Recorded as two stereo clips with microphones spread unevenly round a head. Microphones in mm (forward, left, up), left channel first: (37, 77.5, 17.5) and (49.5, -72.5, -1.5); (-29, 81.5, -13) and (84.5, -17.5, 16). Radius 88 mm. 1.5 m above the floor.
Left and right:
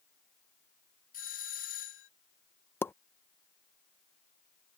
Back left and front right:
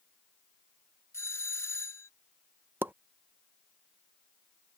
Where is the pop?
25° left.